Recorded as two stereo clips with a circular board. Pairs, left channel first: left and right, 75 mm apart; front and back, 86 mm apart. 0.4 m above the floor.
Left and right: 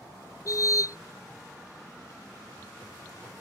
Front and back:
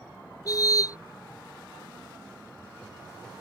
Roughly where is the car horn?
Ahead left.